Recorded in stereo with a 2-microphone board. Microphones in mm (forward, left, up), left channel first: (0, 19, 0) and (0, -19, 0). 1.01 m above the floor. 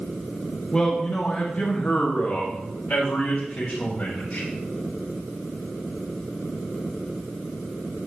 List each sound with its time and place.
0.7 s a man speaking: 20° left (ahead or behind), 1.4 m; by 4.5 s 60° left (ahead or behind), 5 m